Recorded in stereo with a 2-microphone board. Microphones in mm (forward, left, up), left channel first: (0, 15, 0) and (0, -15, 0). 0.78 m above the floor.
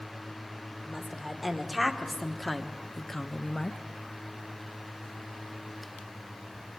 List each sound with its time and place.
0.9 s a woman speaking: 5° right (ahead or behind), 2.5 m; by 3.8 s 25° left (ahead or behind), 0.6 m